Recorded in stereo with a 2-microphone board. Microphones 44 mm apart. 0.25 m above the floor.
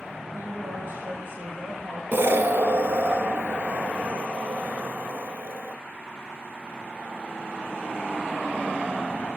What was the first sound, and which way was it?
A woman speaking, 50° right (ahead or behind).